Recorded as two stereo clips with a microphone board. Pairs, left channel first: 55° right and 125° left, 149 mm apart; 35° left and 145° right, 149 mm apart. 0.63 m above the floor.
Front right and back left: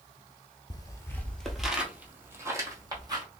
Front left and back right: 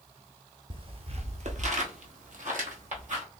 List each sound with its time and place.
0.7 s footsteps: 105° right, 0.8 m; by 3.2 s 175° right, 1.7 m